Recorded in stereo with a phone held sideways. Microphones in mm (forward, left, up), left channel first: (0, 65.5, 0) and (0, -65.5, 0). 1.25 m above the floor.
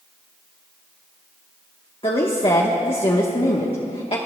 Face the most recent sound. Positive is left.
turn(degrees=45)  # may be behind; listen again after turning